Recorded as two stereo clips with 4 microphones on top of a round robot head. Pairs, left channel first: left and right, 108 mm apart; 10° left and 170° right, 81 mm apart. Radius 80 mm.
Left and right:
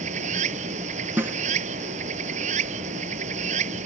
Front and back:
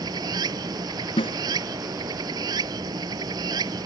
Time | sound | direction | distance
0.0 | running water | 120° right | ?
1.2 | a snare drum | 20° right | ?